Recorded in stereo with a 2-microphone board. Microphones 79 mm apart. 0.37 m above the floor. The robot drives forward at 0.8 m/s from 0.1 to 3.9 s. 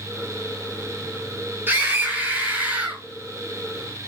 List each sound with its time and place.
1.7 s a scream: 25° right (ahead or behind), 4.5 m; by 3.0 s 20° right (ahead or behind), 5.5 m